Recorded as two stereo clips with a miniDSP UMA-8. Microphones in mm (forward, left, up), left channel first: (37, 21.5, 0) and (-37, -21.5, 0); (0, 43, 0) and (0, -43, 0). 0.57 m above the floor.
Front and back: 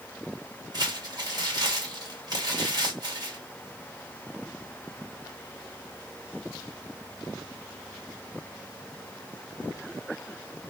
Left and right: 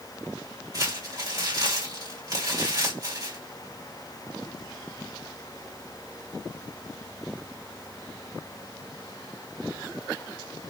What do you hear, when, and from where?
0.7 s crumpling: 125° right, 1.8 m